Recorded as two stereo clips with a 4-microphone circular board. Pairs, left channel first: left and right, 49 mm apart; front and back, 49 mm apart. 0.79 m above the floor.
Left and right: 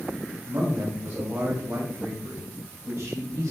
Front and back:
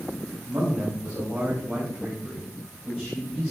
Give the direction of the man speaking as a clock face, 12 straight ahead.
4 o'clock.